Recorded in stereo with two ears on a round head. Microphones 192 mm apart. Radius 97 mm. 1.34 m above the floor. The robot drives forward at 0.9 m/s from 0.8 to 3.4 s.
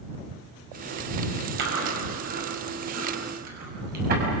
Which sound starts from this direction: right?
Chewing, at 1.6 s.